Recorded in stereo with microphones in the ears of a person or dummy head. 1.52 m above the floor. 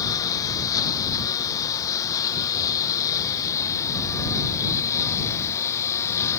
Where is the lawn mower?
20° left (ahead or behind); by 6.4 s 15° left (ahead or behind).